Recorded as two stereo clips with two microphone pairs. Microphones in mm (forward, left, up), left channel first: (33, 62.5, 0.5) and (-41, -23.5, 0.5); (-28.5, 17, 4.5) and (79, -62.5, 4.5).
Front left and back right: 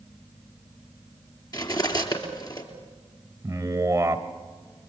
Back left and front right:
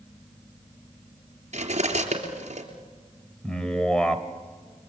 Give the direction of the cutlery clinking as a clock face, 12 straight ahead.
12 o'clock.